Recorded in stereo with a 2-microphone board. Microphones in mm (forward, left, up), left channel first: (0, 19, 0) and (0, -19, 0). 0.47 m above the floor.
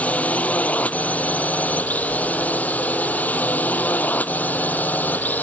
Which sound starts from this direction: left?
A drone, at 0.0 s.